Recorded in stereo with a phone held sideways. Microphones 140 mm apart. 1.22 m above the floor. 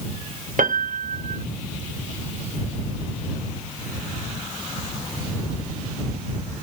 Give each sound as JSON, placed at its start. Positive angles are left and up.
{"t": 0.6, "sound": "a piano", "side_deg": -70}